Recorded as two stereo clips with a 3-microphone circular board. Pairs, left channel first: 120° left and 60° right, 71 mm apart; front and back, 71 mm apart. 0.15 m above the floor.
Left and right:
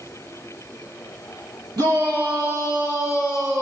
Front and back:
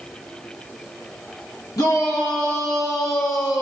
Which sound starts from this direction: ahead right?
A shout, at 1.8 s.